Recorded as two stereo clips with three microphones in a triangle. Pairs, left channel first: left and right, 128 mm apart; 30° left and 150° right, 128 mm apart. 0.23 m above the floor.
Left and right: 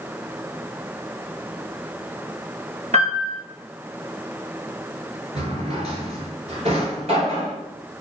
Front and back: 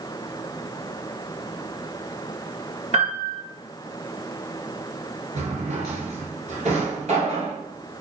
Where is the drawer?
125° right, 1.0 m.